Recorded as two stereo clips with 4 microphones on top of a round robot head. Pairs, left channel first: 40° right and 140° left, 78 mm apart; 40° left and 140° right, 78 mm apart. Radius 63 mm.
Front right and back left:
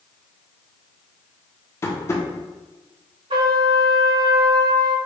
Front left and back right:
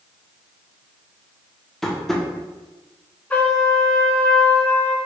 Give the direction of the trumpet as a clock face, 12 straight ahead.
8 o'clock.